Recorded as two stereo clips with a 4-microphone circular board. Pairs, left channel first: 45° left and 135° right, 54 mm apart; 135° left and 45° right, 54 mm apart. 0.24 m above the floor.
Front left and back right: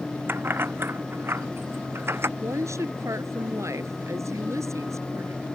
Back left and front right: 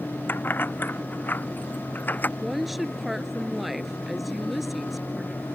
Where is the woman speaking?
130° right.